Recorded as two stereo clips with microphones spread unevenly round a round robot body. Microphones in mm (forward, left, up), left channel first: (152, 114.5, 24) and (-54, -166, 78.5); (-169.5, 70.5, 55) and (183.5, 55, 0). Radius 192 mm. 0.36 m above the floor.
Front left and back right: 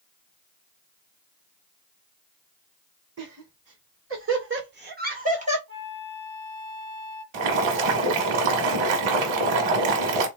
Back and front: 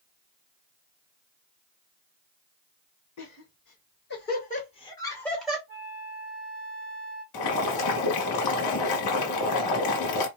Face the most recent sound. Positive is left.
turn(degrees=-145)